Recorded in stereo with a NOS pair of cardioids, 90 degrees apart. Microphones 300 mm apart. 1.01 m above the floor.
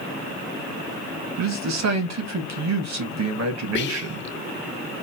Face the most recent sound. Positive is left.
turn(degrees=40)